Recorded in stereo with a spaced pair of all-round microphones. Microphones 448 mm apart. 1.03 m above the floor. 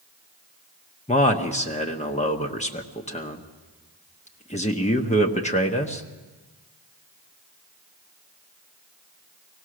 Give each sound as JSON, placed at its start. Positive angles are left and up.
{"t": 1.1, "sound": "a man speaking", "side_deg": 15, "distance_m": 1.1}